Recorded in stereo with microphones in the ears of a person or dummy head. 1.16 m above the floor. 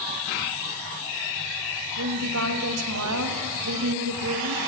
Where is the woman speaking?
80° right, 1.3 m.